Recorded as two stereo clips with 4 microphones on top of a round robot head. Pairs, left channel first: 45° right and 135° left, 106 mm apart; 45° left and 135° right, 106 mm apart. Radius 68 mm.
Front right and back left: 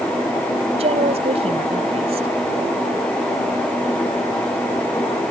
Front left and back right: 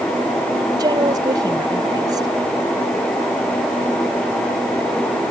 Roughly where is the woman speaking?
Behind.